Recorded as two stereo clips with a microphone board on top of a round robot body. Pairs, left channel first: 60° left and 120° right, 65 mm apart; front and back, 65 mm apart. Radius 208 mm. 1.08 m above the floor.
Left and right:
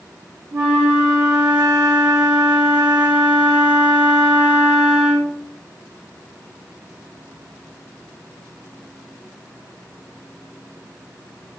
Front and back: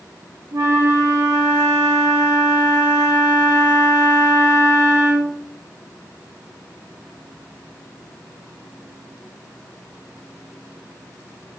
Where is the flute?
145° right, 1.0 m.